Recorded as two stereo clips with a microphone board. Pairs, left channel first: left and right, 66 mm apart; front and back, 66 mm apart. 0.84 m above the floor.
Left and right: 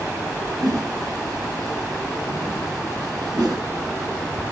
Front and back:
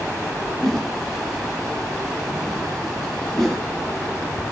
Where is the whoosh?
85° right, 3.5 m.